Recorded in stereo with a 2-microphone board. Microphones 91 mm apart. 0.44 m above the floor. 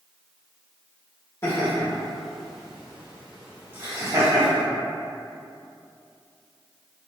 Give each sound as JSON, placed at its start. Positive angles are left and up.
{"t": 1.4, "sound": "laughter", "side_deg": 30, "distance_m": 1.1}